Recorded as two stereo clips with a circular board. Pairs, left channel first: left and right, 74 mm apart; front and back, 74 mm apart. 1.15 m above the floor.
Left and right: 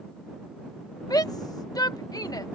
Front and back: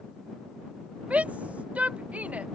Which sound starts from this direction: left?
A shout, at 1.1 s.